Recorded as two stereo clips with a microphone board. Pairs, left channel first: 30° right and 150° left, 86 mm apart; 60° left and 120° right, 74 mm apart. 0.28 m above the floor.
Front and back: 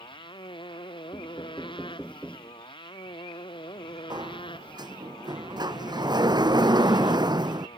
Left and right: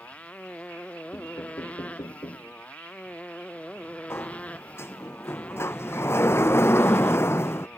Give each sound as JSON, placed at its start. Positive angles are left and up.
{"t": 0.0, "sound": "a motorcycle", "azimuth_deg": -10}
{"t": 1.1, "sound": "knocking", "azimuth_deg": 45}
{"t": 4.1, "sound": "a sliding door", "azimuth_deg": 115}